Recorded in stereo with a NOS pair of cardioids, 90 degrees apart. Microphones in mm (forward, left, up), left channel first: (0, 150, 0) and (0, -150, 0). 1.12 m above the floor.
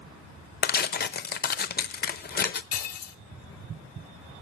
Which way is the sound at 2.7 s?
55° left.